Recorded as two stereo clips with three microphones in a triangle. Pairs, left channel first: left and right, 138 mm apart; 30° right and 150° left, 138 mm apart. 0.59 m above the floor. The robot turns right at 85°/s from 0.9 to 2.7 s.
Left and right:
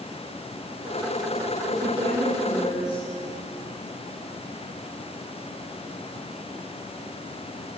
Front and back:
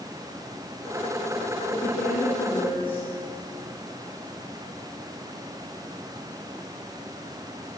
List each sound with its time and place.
1.7 s a woman speaking: 65° right, 9 m; by 3.0 s 20° left, 9 m